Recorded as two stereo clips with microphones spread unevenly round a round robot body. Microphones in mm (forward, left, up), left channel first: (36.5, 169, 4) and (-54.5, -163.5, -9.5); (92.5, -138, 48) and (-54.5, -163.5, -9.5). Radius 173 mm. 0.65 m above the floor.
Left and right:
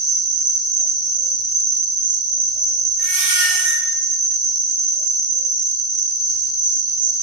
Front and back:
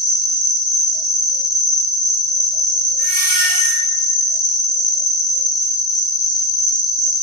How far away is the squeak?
About 0.6 m.